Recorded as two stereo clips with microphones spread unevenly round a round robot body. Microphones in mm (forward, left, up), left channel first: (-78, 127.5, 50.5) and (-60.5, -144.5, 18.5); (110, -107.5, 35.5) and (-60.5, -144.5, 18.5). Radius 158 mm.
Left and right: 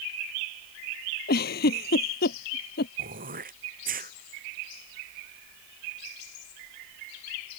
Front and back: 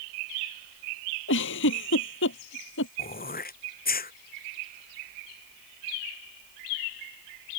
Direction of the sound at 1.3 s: 30° left.